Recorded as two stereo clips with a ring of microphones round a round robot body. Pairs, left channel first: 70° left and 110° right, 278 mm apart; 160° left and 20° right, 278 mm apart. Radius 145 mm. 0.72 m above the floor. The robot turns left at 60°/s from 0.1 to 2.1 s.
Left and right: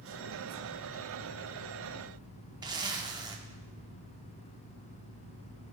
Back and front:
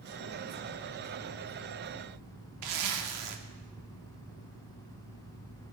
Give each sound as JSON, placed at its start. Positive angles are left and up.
{"t": 2.6, "sound": "a zipper", "azimuth_deg": -35, "distance_m": 1.0}